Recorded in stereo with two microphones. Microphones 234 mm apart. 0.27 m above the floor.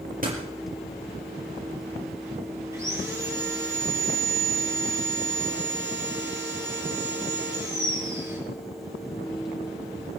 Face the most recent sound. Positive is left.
turn(degrees=-15)  # may be behind; listen again after turning